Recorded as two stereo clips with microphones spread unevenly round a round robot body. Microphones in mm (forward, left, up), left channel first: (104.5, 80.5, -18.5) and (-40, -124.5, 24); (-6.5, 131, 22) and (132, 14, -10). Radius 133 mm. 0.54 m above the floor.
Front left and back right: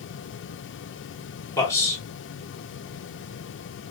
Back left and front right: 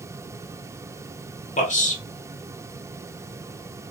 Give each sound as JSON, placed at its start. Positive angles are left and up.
{"t": 1.6, "sound": "a man speaking", "azimuth_deg": 110, "distance_m": 1.2}